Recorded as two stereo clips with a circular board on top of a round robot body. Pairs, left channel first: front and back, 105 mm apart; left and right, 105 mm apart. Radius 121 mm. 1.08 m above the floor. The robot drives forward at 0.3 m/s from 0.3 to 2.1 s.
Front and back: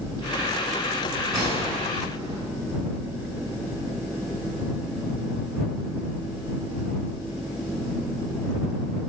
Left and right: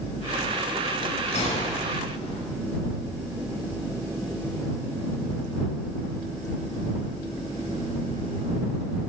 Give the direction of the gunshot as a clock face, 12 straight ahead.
8 o'clock.